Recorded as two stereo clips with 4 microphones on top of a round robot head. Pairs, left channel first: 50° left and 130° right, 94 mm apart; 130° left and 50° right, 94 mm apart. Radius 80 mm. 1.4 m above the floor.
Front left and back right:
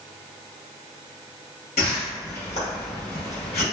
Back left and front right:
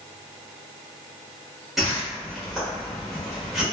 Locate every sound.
1.8 s a whoosh: 40° left, 1.0 m